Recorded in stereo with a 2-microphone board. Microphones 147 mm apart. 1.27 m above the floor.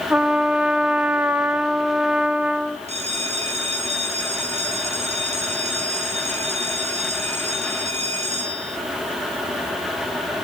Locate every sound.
0.1 s a trumpet: 10° right (ahead or behind), 1.1 m
2.9 s a bell: 45° right (ahead or behind), 4 m